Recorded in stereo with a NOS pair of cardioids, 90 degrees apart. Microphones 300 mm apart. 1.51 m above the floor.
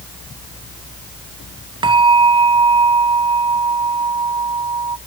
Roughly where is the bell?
Ahead.